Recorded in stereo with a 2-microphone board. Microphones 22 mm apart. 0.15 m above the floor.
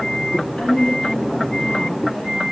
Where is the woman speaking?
60° left (ahead or behind), 3 m; by 2.4 s 55° left (ahead or behind), 3 m.